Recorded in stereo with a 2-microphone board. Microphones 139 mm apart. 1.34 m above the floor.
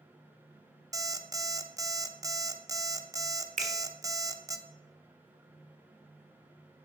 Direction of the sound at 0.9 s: 25° right (ahead or behind).